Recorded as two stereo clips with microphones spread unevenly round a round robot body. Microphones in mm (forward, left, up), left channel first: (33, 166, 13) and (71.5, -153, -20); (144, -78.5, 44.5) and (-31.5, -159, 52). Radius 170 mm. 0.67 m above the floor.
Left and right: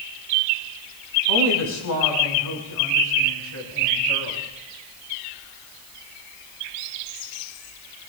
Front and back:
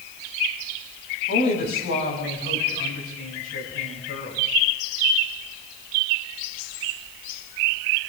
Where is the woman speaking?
65° left, 5 m; by 4.4 s 50° left, 6.5 m.